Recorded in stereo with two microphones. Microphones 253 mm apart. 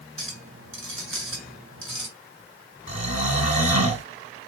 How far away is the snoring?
About 2.5 m.